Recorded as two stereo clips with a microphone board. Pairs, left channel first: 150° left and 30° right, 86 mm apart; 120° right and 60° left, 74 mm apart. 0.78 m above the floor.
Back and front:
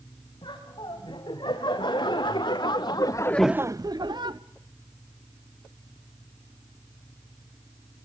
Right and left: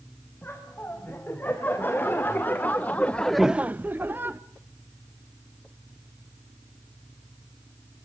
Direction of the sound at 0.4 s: 175° left.